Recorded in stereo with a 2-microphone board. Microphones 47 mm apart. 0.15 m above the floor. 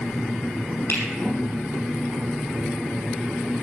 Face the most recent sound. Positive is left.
turn(degrees=50)  # may be behind; listen again after turning